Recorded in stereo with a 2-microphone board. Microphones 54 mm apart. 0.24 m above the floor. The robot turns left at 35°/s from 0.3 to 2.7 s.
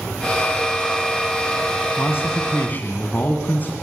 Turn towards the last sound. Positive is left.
turn(degrees=35)  # may be behind; listen again after turning